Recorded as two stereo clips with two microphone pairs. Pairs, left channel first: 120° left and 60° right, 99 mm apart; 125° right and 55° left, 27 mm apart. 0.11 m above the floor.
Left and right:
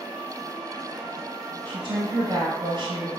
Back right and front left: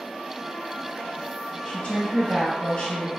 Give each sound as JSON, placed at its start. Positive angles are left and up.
{"t": 1.6, "sound": "a woman speaking", "azimuth_deg": -80, "distance_m": 1.8}